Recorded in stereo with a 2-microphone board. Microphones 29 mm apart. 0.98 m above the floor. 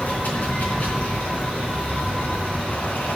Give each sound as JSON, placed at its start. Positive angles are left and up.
{"t": 0.0, "sound": "running water", "side_deg": 70, "distance_m": 3.5}